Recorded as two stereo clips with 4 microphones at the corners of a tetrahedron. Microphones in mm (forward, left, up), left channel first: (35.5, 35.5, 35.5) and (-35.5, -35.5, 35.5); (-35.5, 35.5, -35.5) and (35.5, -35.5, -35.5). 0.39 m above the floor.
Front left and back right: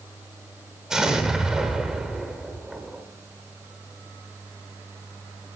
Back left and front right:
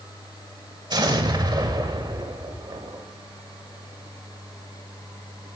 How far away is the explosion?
About 1.1 m.